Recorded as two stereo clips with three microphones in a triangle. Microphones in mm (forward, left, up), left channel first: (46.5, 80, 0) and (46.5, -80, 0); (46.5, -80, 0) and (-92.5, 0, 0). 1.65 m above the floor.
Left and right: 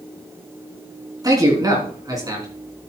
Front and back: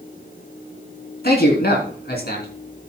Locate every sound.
1.2 s a man speaking: 25° right, 3.5 m